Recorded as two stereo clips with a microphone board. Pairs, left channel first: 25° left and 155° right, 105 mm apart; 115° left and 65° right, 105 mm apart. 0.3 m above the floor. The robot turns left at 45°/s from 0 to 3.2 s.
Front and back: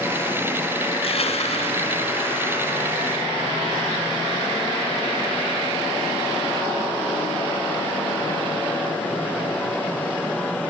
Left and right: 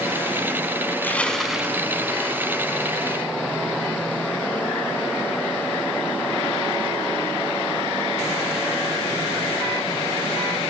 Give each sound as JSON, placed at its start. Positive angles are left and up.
{"t": 0.9, "sound": "crushing", "azimuth_deg": 45, "distance_m": 2.0}